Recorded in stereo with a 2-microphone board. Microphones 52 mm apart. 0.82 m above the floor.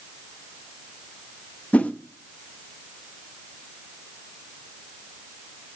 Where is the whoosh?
30° left (ahead or behind), 0.8 m.